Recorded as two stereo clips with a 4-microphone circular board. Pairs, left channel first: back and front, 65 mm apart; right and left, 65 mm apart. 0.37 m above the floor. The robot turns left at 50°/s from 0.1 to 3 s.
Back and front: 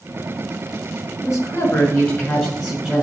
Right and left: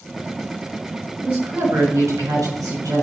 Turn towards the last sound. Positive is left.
turn(degrees=80)